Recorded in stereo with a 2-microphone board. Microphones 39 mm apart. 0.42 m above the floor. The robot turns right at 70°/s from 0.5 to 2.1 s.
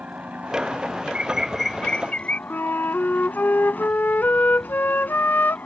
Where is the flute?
65° left (ahead or behind).